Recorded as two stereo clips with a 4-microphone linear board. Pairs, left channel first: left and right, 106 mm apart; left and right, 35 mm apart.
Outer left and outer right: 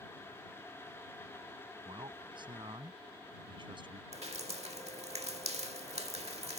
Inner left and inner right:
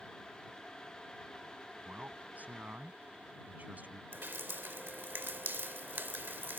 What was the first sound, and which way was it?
A man speaking, 45° right (ahead or behind).